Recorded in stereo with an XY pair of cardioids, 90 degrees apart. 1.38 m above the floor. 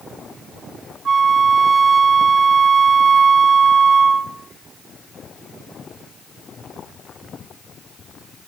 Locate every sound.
1.1 s a flute: 55° right, 1.5 m